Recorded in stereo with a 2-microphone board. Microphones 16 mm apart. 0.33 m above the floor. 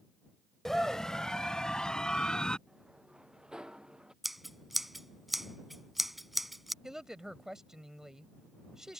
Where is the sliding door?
70° right (ahead or behind).